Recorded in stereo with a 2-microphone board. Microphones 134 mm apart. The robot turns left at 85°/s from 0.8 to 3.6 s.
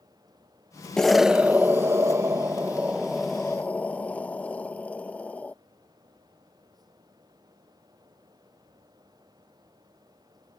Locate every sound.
1.0 s an explosion: 5° left (ahead or behind); by 5.5 s 10° left (ahead or behind)